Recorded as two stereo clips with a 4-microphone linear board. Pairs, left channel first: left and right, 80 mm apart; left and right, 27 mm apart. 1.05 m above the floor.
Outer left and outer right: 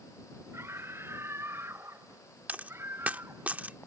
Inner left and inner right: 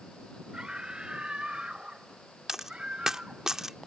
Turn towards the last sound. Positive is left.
turn(degrees=-20)  # may be behind; listen again after turning